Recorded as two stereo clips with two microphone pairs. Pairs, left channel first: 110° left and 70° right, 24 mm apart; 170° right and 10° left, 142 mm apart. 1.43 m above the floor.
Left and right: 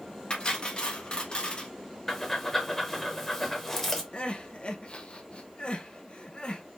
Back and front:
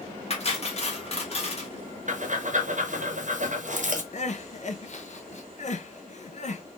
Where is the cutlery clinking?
155° left, 1.1 m.